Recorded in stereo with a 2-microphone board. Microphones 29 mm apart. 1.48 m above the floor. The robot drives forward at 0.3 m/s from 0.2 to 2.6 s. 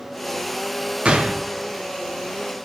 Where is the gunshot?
45° right (ahead or behind), 0.7 m; by 1.5 s 40° right (ahead or behind), 0.7 m.